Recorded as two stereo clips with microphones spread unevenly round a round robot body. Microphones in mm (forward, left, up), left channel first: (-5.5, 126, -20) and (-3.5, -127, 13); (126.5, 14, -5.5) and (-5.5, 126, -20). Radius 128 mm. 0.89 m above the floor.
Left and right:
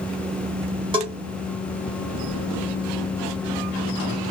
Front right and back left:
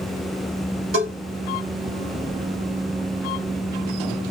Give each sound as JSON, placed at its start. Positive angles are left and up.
{"t": 0.9, "sound": "a bell", "azimuth_deg": -160, "distance_m": 1.3}